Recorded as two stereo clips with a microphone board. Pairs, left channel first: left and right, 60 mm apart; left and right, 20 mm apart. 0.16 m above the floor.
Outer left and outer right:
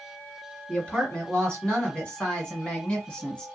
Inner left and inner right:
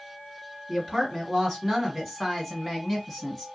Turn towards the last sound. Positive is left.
turn(degrees=15)  # may be behind; listen again after turning